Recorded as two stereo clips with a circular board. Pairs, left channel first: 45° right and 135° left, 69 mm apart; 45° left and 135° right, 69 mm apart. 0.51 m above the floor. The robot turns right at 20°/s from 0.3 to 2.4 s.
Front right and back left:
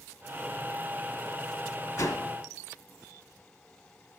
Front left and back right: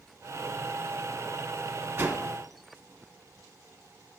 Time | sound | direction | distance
2.0 | a whoosh | 75° right | 1.4 m